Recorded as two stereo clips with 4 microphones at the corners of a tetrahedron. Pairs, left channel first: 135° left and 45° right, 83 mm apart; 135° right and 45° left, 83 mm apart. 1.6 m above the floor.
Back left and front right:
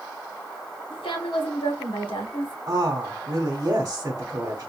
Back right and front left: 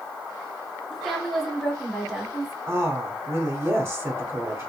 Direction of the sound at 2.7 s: 5° right.